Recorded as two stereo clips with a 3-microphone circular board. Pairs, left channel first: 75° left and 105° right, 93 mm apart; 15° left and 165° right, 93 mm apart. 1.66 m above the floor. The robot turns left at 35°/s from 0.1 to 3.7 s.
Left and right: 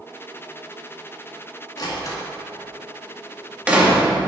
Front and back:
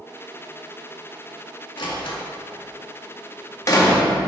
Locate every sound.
1.8 s a door slam: 35° left, 1.8 m; by 4.3 s 30° right, 1.8 m